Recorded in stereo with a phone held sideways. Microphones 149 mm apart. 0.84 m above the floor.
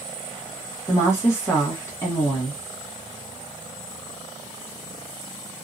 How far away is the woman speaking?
About 0.9 m.